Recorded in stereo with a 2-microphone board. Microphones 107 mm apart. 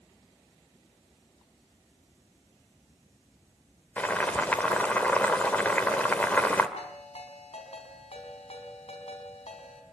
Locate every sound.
4.0 s boiling: 15° left (ahead or behind), 2 m
6.8 s a ringtone: 80° left, 4 m